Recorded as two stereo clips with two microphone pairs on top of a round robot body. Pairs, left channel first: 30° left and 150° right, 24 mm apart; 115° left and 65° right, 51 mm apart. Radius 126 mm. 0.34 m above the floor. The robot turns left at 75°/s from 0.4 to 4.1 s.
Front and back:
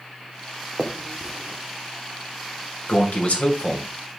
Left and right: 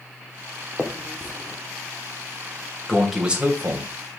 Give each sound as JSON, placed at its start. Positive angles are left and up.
{"t": 0.8, "sound": "a finger snap", "azimuth_deg": -135, "distance_m": 1.4}
{"t": 2.9, "sound": "a man speaking", "azimuth_deg": 45, "distance_m": 2.0}